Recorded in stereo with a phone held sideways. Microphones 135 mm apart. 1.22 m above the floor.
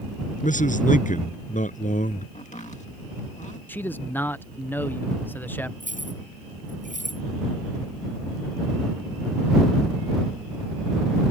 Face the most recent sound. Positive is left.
turn(degrees=-75)  # may be behind; listen again after turning